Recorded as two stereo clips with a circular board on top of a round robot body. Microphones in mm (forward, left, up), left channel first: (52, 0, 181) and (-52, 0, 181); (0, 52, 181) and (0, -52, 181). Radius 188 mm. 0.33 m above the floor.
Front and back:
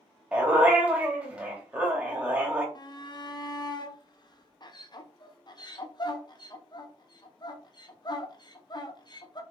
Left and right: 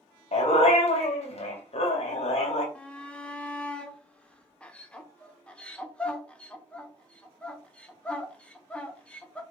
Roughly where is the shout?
Ahead.